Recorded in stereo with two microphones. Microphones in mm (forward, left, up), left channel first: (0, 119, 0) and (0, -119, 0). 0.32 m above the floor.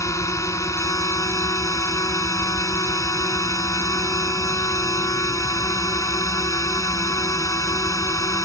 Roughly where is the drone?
Centre.